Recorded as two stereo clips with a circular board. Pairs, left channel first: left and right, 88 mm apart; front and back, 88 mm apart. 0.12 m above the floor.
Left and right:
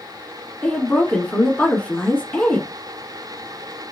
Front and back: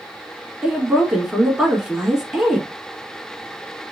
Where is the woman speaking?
115° left, 1.0 m.